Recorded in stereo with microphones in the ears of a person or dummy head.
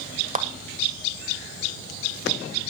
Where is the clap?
40° right (ahead or behind), 1.4 m.